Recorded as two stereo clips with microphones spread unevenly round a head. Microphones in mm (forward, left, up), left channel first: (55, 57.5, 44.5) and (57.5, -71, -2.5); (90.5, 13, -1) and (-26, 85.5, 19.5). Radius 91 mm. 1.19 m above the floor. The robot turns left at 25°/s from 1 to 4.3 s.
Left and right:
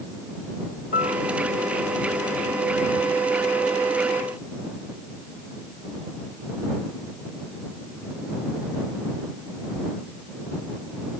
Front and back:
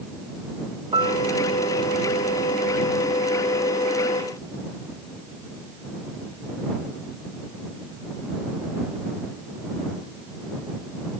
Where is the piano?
100° left; by 1.2 s 90° left.